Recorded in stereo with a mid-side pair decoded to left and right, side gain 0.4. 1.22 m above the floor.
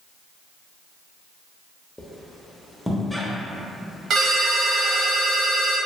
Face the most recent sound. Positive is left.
turn(degrees=-70)